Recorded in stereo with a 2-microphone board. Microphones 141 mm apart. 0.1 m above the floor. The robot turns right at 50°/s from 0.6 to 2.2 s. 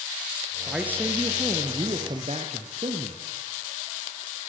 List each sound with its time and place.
0.7 s a man speaking: 175° right, 2 m; by 3.2 s 100° right, 2 m